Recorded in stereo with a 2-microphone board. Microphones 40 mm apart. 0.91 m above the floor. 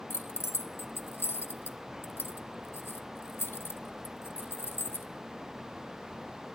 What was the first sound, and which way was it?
Keys jangling, 80° left.